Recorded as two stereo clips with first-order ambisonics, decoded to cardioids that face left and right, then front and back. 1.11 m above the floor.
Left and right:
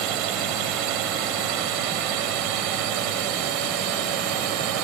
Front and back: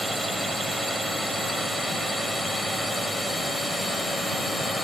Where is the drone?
100° right; by 4.8 s 95° right.